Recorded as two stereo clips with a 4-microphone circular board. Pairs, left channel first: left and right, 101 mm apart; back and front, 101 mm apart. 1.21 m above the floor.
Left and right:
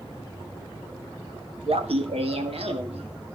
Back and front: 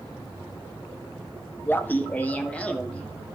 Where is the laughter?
110° right, 1.3 m; by 3.4 s 100° right, 2.5 m.